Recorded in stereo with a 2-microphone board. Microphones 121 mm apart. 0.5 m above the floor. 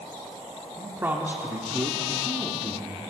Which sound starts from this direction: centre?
A man speaking, at 0.8 s.